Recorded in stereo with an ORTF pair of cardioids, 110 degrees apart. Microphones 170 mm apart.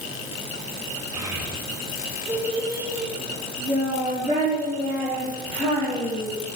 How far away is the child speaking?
About 3 m.